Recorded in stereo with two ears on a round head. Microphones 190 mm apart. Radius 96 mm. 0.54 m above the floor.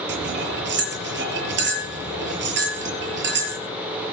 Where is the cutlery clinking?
60° right (ahead or behind), 7 m.